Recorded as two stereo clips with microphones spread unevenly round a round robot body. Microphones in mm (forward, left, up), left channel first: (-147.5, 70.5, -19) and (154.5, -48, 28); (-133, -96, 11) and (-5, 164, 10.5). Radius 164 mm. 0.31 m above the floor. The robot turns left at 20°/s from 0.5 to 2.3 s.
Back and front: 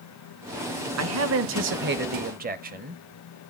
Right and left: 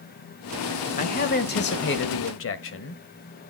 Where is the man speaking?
60° right, 1.3 m; by 3.0 s 85° right, 1.3 m.